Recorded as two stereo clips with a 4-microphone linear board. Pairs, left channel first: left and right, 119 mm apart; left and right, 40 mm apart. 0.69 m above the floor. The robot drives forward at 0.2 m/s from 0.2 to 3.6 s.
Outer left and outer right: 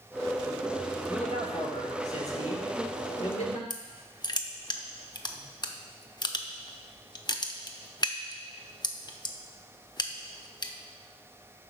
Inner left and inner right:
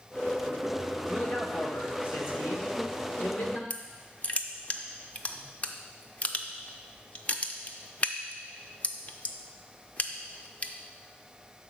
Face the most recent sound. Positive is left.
turn(degrees=35)  # may be behind; listen again after turning